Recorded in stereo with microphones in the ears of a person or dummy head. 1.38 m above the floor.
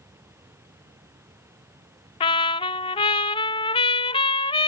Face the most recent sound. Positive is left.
turn(degrees=20)  # may be behind; listen again after turning